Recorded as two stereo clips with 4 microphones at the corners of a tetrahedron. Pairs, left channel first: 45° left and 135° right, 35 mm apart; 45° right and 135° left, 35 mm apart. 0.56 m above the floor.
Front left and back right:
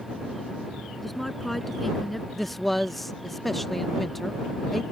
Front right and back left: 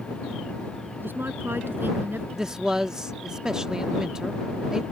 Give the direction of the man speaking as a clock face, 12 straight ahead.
8 o'clock.